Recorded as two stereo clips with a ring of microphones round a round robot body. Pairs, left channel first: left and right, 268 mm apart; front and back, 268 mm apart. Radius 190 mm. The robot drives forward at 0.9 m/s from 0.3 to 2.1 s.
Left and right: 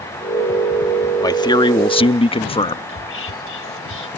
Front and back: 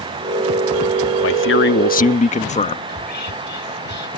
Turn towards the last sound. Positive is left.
turn(degrees=50)